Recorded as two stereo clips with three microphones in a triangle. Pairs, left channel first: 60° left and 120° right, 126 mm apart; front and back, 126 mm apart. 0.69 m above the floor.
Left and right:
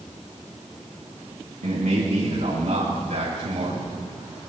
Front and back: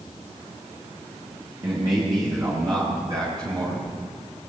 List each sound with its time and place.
1.6 s a man speaking: 125° right, 6 m